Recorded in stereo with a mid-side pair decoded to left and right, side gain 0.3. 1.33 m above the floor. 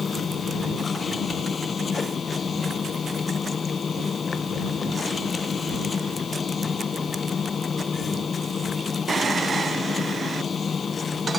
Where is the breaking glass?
No breaking glass in this recording.